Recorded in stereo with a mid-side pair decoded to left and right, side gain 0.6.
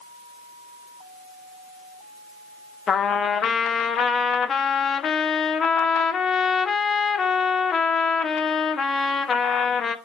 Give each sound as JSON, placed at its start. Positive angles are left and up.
{"t": 2.9, "sound": "a trumpet", "azimuth_deg": 40, "distance_m": 0.9}